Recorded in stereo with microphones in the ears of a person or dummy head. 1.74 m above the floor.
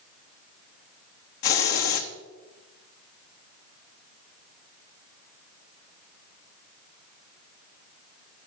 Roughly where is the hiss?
Left.